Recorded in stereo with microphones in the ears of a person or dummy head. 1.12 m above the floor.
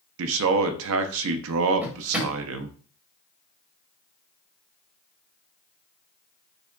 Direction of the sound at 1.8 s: 10° right (ahead or behind).